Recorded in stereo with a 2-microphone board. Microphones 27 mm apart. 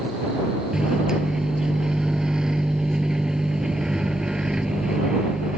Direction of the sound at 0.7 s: 20° right (ahead or behind).